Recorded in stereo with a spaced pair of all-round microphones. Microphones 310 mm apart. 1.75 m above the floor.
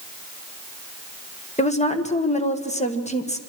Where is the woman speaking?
20° left (ahead or behind), 1.8 m.